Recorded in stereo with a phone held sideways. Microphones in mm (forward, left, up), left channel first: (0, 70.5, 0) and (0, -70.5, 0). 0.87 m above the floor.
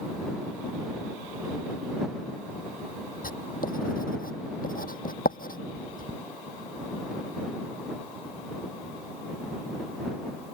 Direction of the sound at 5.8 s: 10° right (ahead or behind).